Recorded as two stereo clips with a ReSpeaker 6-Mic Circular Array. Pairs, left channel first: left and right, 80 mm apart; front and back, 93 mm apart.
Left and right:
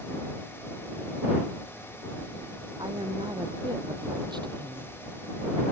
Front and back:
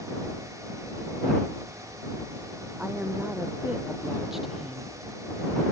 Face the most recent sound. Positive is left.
turn(degrees=-80)